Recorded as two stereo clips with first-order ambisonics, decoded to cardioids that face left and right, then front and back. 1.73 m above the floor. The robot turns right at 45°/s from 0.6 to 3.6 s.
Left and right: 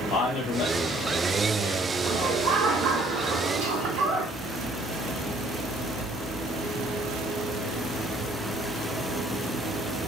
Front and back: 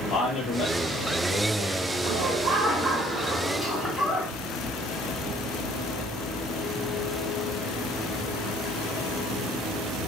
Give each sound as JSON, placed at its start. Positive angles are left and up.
{"t": 0.1, "sound": "a man speaking", "azimuth_deg": 60, "distance_m": 1.8}
{"t": 2.0, "sound": "laughter", "azimuth_deg": -155, "distance_m": 1.2}